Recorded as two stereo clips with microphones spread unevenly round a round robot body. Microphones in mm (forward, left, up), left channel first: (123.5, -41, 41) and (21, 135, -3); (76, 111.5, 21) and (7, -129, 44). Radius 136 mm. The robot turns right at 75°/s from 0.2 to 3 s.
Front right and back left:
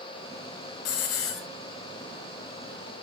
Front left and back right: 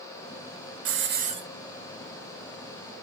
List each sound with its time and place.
0.8 s a hiss: 75° right, 1.4 m; by 1.4 s 30° right, 1.4 m